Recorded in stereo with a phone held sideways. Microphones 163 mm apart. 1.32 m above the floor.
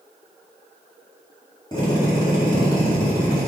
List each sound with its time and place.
1.7 s a drill: 25° left (ahead or behind), 3.5 m